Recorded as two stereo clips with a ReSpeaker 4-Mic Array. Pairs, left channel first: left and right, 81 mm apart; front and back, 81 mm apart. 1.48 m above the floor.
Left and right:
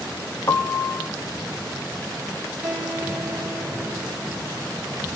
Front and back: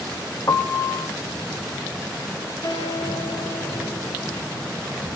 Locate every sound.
0.5 s a piano: 45° left, 0.9 m
2.6 s a guitar: 15° right, 6 m